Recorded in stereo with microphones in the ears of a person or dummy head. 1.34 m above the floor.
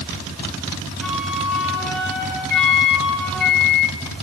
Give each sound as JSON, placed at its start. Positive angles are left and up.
{"t": 1.0, "sound": "a flute", "side_deg": 0, "distance_m": 6.0}
{"t": 2.5, "sound": "a microwave", "side_deg": 55, "distance_m": 2.5}